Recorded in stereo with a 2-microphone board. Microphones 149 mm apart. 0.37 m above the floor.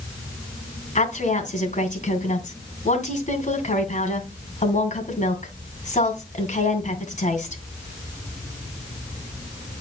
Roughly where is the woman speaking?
Left.